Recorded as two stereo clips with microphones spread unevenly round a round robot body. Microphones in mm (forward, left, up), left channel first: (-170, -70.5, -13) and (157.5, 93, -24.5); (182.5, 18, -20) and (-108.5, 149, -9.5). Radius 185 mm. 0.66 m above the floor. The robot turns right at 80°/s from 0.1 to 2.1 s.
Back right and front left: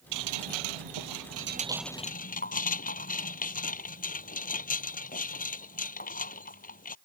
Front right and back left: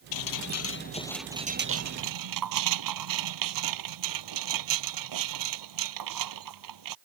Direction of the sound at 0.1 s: 20° right.